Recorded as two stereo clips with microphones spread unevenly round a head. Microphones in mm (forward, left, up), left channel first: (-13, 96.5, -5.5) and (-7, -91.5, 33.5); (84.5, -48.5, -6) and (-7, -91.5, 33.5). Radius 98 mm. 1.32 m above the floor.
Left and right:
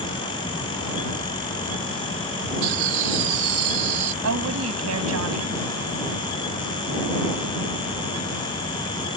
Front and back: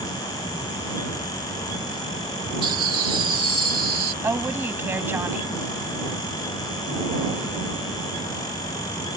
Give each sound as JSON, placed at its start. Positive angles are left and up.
{"t": 2.6, "sound": "laughter", "azimuth_deg": -115}
{"t": 4.2, "sound": "a woman speaking", "azimuth_deg": -90}